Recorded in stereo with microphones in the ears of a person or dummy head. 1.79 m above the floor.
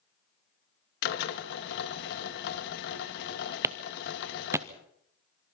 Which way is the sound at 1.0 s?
65° left (ahead or behind).